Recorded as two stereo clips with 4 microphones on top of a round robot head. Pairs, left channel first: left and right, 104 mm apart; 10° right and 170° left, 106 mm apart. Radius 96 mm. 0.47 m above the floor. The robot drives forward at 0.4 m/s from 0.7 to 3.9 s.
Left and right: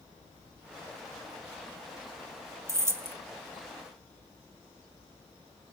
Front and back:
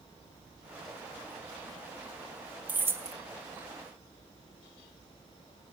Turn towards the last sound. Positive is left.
turn(degrees=-160)